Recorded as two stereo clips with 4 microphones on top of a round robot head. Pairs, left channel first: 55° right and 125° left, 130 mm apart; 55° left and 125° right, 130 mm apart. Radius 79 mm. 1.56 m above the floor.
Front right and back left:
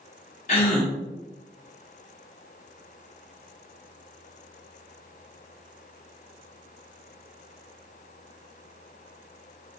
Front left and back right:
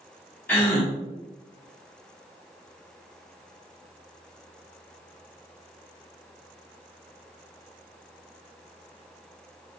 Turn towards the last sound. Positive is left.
turn(degrees=-20)